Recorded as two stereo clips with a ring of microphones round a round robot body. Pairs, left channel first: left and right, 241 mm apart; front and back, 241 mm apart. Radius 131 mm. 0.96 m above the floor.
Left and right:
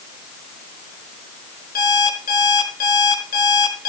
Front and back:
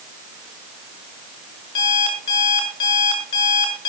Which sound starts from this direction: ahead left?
An alarm clock, at 1.8 s.